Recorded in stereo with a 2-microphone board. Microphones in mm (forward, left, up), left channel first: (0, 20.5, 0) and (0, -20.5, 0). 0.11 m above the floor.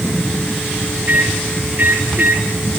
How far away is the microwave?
About 5.5 m.